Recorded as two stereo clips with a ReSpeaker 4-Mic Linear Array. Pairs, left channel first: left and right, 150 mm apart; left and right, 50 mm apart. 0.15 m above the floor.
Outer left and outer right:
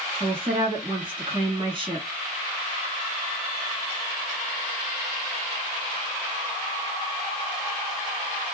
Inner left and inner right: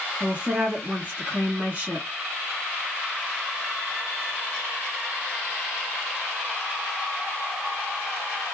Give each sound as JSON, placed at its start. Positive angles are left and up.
{"t": 0.2, "sound": "a woman speaking", "side_deg": -35, "distance_m": 1.3}